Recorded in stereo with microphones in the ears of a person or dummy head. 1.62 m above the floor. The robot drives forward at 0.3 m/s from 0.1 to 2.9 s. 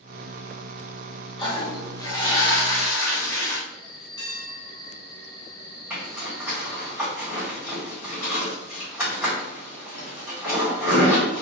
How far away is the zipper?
About 2 m.